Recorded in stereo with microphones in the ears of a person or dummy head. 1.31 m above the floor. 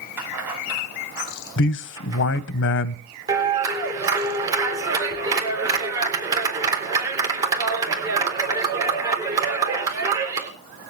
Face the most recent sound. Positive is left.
turn(degrees=-15)  # may be behind; listen again after turning